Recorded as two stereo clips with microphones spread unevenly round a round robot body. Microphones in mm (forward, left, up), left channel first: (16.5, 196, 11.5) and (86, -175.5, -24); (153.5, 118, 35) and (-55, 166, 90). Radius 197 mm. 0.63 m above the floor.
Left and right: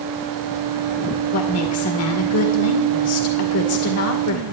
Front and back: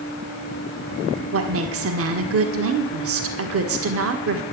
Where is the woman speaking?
155° left, 2.0 m.